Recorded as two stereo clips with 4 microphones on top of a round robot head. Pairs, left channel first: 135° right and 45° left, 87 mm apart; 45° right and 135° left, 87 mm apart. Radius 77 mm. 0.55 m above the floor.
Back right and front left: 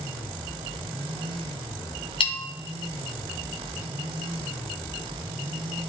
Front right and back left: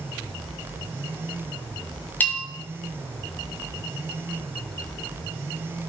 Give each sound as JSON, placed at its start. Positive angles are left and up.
{"t": 2.2, "sound": "a bell", "azimuth_deg": -115, "distance_m": 1.7}